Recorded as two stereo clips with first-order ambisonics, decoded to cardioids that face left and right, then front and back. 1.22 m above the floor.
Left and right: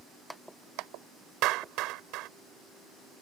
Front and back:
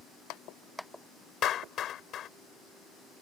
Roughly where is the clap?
Ahead right.